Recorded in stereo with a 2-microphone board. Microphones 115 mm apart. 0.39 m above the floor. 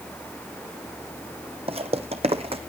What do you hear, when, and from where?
1.7 s footsteps: 60° right (ahead or behind), 0.9 m